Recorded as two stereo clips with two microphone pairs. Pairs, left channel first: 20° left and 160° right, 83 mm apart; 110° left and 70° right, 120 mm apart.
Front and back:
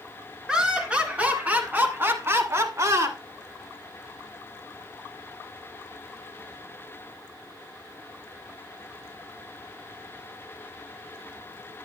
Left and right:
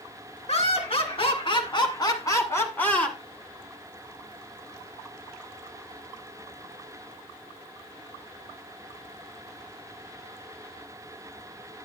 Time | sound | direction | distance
0.5 | laughter | 120° left | 2.5 m